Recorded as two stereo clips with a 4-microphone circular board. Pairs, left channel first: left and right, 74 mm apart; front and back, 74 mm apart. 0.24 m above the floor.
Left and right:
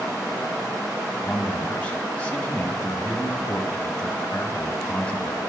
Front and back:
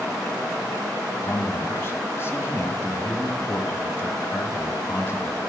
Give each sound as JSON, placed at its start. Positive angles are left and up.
{"t": 1.2, "sound": "a man speaking", "azimuth_deg": 30, "distance_m": 1.6}